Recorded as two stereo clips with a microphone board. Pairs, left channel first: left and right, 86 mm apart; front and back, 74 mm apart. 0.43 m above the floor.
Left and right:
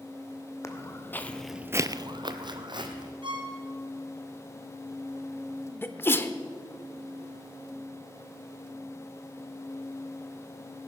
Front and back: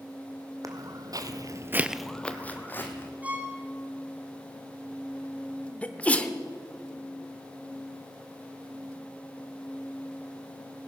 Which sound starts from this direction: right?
A violin, at 3.2 s.